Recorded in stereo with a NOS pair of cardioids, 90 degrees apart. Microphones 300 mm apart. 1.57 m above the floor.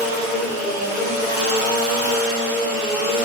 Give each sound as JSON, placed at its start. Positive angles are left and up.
{"t": 0.0, "sound": "a machine running", "azimuth_deg": -25, "distance_m": 1.4}